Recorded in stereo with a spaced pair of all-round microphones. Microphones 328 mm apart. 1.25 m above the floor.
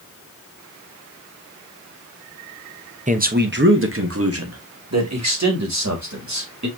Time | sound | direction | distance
3.1 | a man speaking | 20° right (ahead or behind) | 0.8 m